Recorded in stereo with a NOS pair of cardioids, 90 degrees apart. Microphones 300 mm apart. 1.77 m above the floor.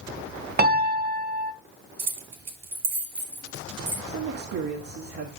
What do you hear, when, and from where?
0.6 s a piano: 30° right, 1.2 m
2.0 s keys jangling: 60° right, 3 m
4.1 s a man speaking: 50° right, 1.8 m